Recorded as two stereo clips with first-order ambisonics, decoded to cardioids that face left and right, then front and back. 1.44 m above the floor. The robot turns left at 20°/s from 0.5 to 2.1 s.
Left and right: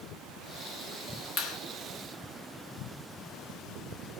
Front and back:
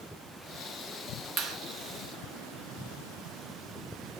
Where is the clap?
140° left, 1.6 m; by 1.6 s 135° left, 1.6 m.